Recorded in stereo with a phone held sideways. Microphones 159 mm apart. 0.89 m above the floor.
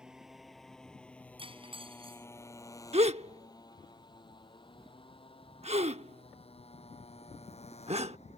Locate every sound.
0.0 s a motorcycle: 5° right (ahead or behind); by 8.4 s 45° left (ahead or behind)
1.4 s cutlery clinking: 35° right (ahead or behind)
2.9 s a gasp: 40° right (ahead or behind)